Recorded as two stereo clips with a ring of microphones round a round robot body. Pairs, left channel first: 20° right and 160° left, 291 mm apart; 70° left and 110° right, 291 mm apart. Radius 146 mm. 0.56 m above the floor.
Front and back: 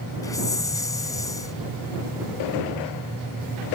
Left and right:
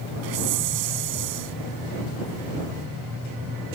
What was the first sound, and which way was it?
A hiss, 100° right.